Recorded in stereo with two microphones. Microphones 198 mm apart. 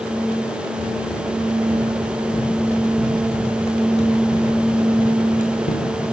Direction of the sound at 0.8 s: 25° left (ahead or behind).